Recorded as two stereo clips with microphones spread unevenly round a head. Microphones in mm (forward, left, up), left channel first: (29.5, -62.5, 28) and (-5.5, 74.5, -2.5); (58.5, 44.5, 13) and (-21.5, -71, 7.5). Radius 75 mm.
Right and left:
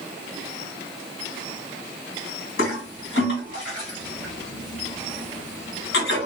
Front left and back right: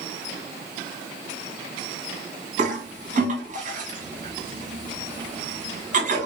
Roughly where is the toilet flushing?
Right.